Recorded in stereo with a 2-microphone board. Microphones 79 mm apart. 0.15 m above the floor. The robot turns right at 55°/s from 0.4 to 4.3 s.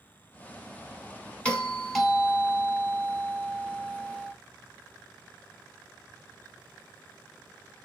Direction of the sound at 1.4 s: 10° left (ahead or behind).